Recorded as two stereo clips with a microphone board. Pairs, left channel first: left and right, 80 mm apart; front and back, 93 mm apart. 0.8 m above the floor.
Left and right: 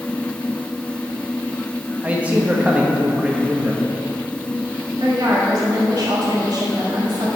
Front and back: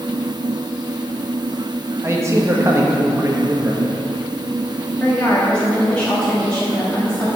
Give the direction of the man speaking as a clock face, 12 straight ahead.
5 o'clock.